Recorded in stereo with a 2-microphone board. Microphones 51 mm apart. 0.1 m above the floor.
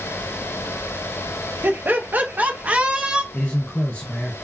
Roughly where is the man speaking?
Left.